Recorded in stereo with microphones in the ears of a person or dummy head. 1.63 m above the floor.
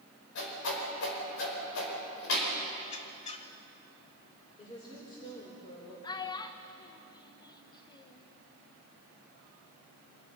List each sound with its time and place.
0.3 s a whoosh: 80° left, 5 m
2.8 s a squeak: 35° left (ahead or behind), 1.0 m
4.6 s a woman speaking: 25° left (ahead or behind), 4.5 m
6.0 s a child speaking: 25° left (ahead or behind), 1.2 m